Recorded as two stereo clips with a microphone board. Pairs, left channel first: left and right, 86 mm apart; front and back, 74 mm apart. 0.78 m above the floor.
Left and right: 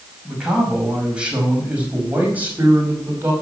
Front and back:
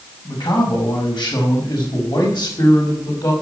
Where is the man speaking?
5° right, 5.5 m; by 3.3 s 25° right, 5 m.